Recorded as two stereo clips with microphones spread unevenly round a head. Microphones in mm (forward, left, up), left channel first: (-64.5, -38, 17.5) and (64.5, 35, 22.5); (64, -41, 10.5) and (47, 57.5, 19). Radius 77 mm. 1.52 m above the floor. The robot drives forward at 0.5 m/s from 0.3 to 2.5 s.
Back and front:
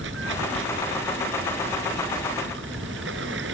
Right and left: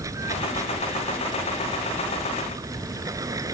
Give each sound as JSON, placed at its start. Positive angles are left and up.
{"t": 0.0, "sound": "running water", "azimuth_deg": 40}